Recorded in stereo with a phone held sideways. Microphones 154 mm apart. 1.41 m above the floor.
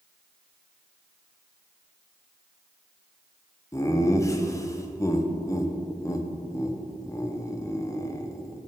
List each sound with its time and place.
3.7 s laughter: 20° left (ahead or behind), 0.8 m